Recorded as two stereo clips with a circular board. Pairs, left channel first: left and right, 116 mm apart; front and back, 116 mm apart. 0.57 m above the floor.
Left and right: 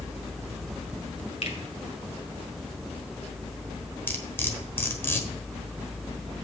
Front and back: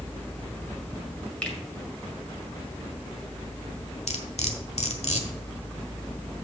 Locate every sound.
1.4 s a finger snap: 80° left, 1.9 m
4.1 s cutlery clinking: 20° left, 1.2 m